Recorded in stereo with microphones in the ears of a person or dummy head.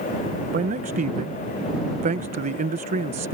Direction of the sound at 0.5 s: 35° right (ahead or behind).